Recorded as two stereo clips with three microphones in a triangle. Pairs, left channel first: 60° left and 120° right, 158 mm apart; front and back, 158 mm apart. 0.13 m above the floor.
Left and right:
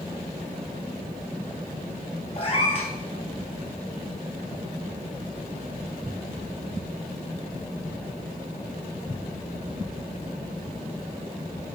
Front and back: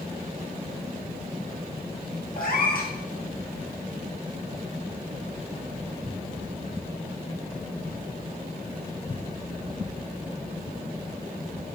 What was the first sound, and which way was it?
A cat meowing, 10° left.